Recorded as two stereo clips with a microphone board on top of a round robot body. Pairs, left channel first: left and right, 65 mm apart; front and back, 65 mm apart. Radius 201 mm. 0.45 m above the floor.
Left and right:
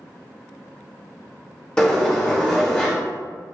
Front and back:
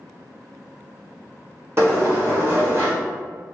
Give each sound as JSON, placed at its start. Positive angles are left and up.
{"t": 1.8, "sound": "a sliding door", "azimuth_deg": 155, "distance_m": 1.6}